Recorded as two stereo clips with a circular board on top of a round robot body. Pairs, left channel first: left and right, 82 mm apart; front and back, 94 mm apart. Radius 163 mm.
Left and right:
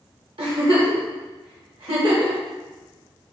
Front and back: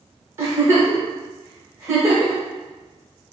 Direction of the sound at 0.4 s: 115° right.